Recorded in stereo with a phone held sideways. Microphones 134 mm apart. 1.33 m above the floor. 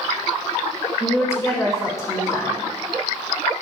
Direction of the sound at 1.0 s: 25° left (ahead or behind).